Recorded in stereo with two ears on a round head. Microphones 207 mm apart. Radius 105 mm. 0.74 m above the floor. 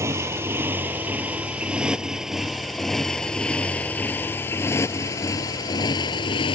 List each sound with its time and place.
0.0 s a motorcycle: 10° right (ahead or behind); by 6.5 s 20° left (ahead or behind)